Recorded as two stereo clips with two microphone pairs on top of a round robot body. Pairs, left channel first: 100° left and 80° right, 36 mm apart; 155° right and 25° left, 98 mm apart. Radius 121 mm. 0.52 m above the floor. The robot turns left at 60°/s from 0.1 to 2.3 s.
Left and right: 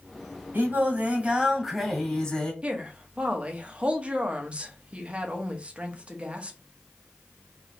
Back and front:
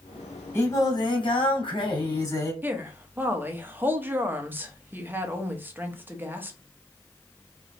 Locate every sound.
0.5 s singing: 95° right, 2.5 m; by 2.5 s 160° left, 2.5 m
2.6 s a woman speaking: 40° right, 1.2 m